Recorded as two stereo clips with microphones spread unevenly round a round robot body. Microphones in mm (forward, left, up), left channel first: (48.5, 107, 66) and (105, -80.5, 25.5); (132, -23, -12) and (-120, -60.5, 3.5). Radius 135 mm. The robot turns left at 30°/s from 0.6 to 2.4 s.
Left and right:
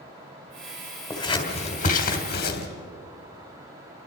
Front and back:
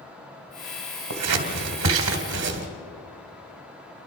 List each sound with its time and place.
1.1 s scissors: 175° right, 2.5 m; by 2.7 s 145° left, 2.5 m